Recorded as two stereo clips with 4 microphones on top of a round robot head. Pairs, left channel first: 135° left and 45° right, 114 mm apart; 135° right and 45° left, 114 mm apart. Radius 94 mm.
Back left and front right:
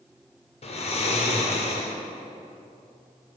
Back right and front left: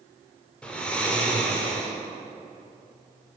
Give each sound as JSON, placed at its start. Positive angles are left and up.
{"t": 0.6, "sound": "snoring", "azimuth_deg": 145, "distance_m": 1.6}